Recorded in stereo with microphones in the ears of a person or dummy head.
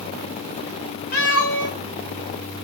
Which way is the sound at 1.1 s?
45° left (ahead or behind).